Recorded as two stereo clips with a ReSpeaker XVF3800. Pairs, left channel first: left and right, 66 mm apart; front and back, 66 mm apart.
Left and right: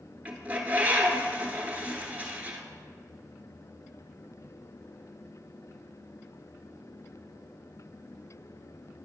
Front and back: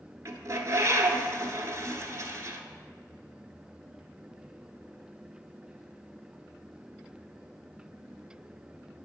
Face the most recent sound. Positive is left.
turn(degrees=-155)